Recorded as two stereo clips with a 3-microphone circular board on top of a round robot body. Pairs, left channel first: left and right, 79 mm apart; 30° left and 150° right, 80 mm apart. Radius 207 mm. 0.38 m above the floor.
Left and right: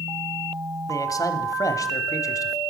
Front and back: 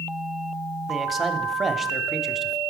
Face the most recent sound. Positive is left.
turn(degrees=125)